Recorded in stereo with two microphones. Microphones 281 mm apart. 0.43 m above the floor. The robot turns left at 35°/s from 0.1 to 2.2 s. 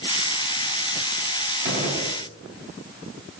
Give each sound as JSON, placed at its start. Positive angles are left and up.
{"t": 1.6, "sound": "a gunshot", "side_deg": -35, "distance_m": 0.9}